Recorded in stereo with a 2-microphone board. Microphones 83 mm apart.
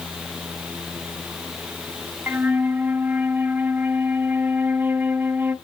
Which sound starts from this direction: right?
A flute, at 2.3 s.